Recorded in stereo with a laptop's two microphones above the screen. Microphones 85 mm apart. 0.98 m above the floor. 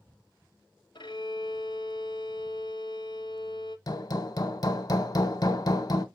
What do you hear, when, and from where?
0.9 s a violin: 60° left (ahead or behind), 0.8 m
3.9 s hammering: 50° left (ahead or behind), 1.0 m